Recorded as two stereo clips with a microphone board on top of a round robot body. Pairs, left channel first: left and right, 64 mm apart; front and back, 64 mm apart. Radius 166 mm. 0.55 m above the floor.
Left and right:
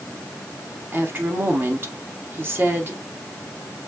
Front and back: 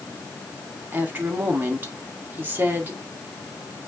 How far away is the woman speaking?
About 1.8 m.